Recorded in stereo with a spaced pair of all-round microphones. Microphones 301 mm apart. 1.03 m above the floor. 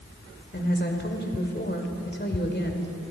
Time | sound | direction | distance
0.5 | a woman speaking | 35° left (ahead or behind) | 3 m